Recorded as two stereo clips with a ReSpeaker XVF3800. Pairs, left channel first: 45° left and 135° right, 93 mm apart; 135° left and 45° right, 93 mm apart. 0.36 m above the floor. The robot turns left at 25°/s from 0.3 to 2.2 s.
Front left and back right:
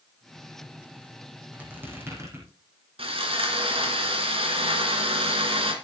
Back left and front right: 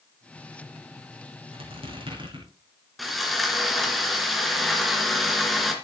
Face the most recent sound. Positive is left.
turn(degrees=-135)